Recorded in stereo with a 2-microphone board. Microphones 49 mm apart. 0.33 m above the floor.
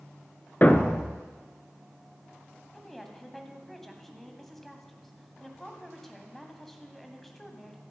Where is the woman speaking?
5° left (ahead or behind), 1.9 m.